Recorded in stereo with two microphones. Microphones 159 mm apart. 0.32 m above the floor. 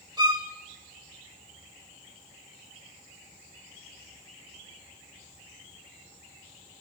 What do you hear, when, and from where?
0.2 s a violin: 25° right (ahead or behind), 1.6 m